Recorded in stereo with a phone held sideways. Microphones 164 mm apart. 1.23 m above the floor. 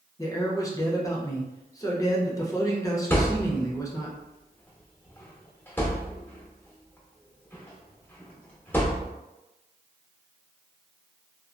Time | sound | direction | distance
0.2 | a man speaking | 20° left (ahead or behind) | 0.7 m
3.1 | a thud | 10° left (ahead or behind) | 0.9 m